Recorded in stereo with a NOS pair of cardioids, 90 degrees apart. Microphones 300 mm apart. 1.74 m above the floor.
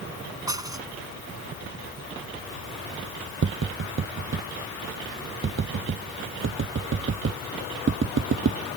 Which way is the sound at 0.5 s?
10° right.